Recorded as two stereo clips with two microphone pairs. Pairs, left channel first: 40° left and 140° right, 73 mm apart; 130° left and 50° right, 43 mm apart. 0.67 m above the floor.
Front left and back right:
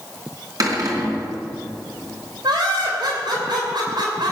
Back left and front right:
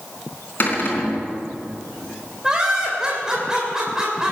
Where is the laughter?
125° right, 3 m.